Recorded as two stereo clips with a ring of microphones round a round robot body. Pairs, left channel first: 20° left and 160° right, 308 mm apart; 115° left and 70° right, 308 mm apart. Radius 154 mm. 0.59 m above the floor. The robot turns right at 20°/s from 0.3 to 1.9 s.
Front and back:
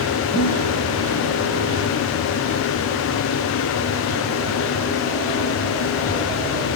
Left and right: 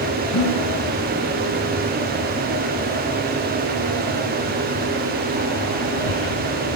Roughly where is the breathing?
Left.